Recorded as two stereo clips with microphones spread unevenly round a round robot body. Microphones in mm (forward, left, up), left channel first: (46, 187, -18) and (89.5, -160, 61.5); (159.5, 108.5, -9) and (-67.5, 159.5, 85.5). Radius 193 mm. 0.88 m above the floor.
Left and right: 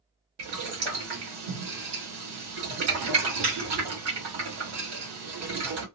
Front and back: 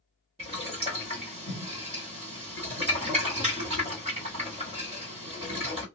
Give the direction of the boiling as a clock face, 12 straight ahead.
4 o'clock.